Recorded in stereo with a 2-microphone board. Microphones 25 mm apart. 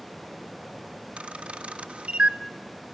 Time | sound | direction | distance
1.2 | a camera shutter | 55° right (ahead or behind) | 0.6 m